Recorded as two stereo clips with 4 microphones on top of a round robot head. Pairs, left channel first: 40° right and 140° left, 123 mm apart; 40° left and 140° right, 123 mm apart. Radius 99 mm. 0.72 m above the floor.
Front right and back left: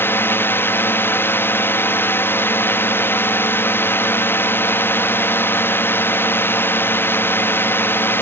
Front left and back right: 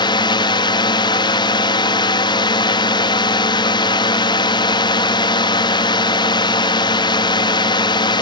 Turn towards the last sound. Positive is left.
turn(degrees=20)